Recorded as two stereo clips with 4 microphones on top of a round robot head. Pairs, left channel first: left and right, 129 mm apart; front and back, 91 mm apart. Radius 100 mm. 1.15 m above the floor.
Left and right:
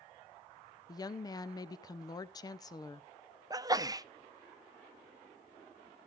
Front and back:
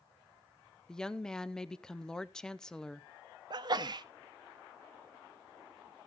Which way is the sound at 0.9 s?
75° left.